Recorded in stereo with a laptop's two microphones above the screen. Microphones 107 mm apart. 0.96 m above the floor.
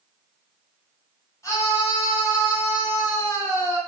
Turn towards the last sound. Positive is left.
turn(degrees=30)  # may be behind; listen again after turning